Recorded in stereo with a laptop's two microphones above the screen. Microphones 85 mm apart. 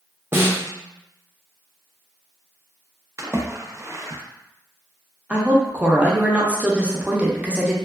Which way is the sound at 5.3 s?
15° right (ahead or behind).